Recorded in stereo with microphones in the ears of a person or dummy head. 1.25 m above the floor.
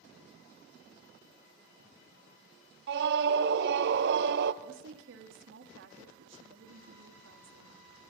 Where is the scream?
65° right (ahead or behind), 0.7 m.